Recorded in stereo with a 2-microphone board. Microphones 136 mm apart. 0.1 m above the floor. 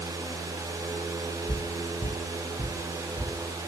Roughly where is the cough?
No cough in this recording.